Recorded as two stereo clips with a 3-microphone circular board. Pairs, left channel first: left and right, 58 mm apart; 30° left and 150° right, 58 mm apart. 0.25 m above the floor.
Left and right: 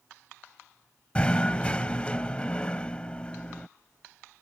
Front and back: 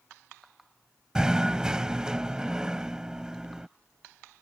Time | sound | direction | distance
1.1 | knocking | 145° left | ?